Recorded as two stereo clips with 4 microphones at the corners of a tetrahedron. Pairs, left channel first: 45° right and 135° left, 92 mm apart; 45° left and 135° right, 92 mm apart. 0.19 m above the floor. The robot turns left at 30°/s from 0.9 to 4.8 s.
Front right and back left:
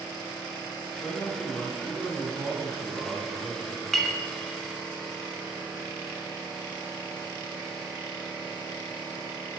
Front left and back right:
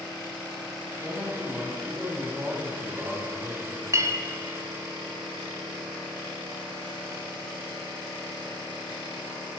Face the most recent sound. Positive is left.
turn(degrees=-160)